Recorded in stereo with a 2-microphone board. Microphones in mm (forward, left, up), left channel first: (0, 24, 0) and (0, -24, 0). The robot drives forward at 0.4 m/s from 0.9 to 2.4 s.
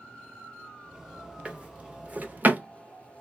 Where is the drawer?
25° right (ahead or behind), 0.8 m; by 3.2 s 35° right (ahead or behind), 0.5 m.